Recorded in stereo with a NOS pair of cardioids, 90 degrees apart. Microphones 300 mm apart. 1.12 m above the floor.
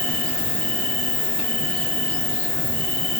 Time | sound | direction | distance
0.0 | an insect | 65° left | 1.5 m